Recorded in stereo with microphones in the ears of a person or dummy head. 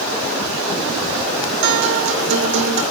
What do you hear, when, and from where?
1.6 s a guitar: 65° right (ahead or behind), 2.0 m